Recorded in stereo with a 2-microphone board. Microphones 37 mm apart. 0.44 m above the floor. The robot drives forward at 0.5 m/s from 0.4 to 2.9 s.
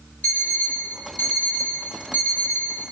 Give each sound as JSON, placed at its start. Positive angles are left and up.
{"t": 0.2, "sound": "an alarm clock", "side_deg": 50, "distance_m": 4.5}